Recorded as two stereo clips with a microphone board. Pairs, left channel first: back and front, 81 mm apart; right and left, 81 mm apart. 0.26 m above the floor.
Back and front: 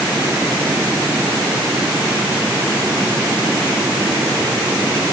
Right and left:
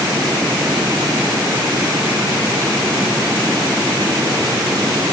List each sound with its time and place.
Only background noise.